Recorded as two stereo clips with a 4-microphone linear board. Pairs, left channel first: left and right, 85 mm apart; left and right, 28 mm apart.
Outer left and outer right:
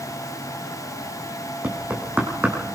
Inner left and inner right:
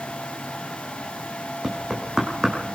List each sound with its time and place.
1.6 s knocking: 20° right (ahead or behind), 5 m